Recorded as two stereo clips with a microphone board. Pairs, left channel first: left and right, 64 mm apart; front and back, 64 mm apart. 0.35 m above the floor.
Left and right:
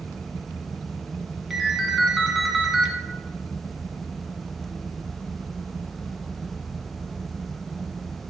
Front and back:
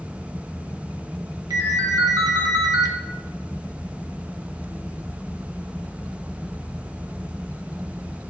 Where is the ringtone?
175° right, 1.1 m.